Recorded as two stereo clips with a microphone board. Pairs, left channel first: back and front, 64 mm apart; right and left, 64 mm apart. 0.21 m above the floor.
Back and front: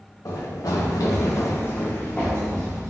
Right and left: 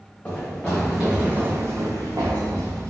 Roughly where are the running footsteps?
Behind.